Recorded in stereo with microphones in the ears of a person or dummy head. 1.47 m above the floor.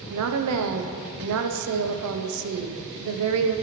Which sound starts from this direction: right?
A woman speaking, at 0.1 s.